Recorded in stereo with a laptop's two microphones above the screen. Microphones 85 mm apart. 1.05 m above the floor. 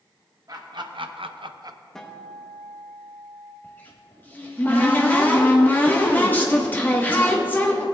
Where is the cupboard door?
20° left (ahead or behind), 1.2 m.